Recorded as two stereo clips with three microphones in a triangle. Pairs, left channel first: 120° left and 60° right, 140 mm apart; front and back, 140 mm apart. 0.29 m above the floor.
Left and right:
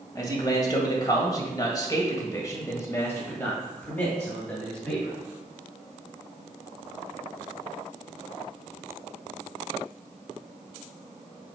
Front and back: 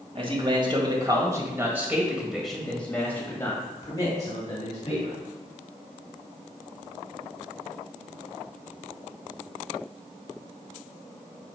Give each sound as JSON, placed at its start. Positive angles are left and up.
{"t": 0.1, "sound": "a man speaking", "azimuth_deg": 165, "distance_m": 1.9}